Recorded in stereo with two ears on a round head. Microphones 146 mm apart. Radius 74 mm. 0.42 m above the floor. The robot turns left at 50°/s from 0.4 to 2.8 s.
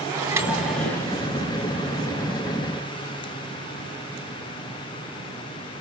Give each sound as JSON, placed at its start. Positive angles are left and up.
{"t": 0.1, "sound": "a microwave", "azimuth_deg": -165, "distance_m": 3.5}